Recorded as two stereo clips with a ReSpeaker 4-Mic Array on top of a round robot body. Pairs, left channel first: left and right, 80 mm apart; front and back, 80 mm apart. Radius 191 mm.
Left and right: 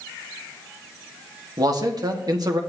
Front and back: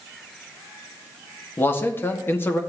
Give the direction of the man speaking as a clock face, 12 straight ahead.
2 o'clock.